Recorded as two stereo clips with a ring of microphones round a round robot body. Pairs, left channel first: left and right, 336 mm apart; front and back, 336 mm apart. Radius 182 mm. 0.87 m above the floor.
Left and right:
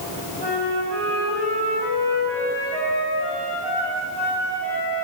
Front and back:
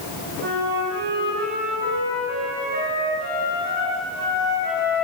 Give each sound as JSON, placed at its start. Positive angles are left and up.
{"t": 0.4, "sound": "a flute", "azimuth_deg": -115, "distance_m": 6.0}